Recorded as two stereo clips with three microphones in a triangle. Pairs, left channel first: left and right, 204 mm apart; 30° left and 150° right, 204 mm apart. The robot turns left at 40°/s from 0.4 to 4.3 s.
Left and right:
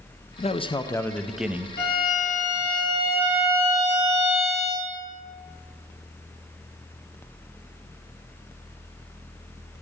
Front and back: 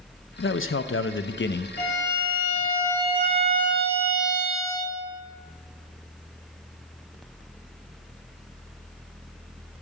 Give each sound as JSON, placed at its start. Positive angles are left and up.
{"t": 0.4, "sound": "a man speaking", "azimuth_deg": 40, "distance_m": 0.5}
{"t": 1.8, "sound": "a violin", "azimuth_deg": 50, "distance_m": 3.5}